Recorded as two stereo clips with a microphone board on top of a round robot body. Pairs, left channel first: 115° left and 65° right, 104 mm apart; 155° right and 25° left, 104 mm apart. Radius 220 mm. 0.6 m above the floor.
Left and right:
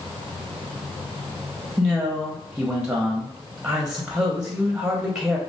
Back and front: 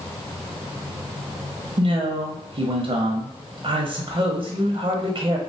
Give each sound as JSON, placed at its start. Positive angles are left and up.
{"t": 1.8, "sound": "a man speaking", "azimuth_deg": 15, "distance_m": 0.8}